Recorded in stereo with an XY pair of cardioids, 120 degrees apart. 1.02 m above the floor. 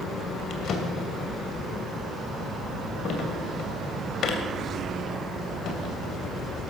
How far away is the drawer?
About 2.5 m.